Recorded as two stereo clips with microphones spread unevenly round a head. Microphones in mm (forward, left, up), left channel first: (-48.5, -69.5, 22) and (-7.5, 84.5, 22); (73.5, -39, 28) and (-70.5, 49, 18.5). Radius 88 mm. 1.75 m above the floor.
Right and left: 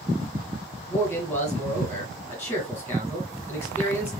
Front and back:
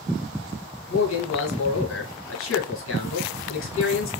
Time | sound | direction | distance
0.9 | a man speaking | 25° right | 1.8 m